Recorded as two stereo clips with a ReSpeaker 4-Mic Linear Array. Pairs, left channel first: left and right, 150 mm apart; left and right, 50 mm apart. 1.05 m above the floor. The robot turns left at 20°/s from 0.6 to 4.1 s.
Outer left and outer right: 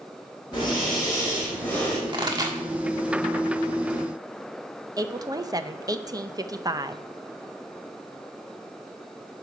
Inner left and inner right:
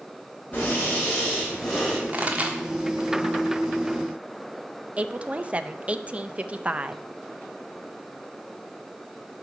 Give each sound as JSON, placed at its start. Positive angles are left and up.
{"t": 0.5, "sound": "breathing", "side_deg": 35, "distance_m": 5.5}
{"t": 2.1, "sound": "a pop", "side_deg": -35, "distance_m": 1.5}
{"t": 5.0, "sound": "a woman speaking", "side_deg": -25, "distance_m": 0.6}